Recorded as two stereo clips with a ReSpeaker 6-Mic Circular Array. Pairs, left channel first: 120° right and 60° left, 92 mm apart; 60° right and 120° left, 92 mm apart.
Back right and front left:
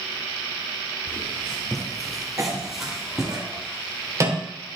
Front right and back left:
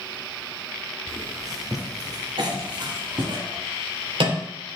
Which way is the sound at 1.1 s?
165° left.